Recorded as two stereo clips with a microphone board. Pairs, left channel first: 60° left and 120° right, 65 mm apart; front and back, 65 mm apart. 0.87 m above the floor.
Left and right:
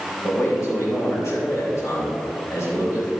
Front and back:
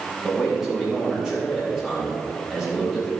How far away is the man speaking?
About 3.5 m.